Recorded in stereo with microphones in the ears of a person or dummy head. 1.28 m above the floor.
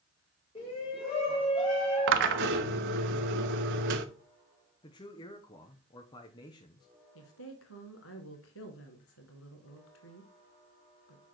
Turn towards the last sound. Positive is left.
turn(degrees=75)  # may be behind; listen again after turning